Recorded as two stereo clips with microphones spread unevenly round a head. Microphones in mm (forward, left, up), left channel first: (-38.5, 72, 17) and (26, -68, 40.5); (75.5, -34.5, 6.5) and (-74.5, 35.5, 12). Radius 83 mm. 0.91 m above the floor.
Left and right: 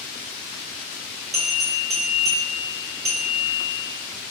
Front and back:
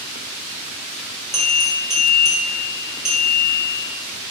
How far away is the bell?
About 1.9 m.